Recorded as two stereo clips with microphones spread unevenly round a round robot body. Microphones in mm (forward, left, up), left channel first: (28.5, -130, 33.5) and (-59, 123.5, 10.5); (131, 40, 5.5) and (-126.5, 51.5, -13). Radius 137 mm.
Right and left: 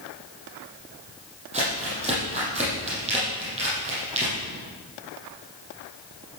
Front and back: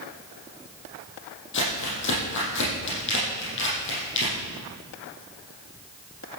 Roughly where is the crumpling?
Ahead left.